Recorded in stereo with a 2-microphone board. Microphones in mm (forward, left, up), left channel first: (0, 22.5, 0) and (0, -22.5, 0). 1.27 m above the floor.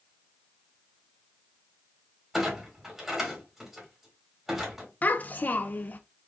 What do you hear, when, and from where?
2.3 s a clunk: 5° right (ahead or behind), 2.0 m
5.0 s a child speaking: 40° left (ahead or behind), 0.5 m